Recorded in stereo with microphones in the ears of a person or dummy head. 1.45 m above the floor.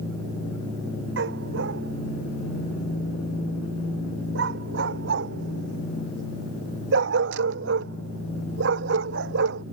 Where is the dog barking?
70° right (ahead or behind).